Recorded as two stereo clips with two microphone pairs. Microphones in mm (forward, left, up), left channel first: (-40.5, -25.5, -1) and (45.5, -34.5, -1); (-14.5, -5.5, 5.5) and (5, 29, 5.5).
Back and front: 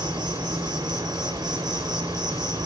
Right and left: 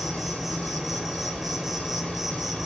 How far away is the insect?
About 0.8 m.